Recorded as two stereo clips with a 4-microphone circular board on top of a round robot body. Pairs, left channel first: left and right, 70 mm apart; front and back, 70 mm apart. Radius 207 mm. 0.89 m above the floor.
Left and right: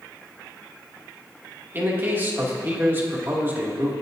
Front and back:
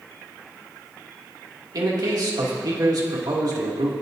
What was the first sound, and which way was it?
A man speaking, 150° right.